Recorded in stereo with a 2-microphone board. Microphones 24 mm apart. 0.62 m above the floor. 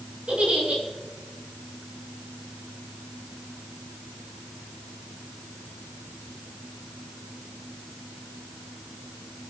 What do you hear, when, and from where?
0.3 s a giggle: 45° right (ahead or behind), 7 m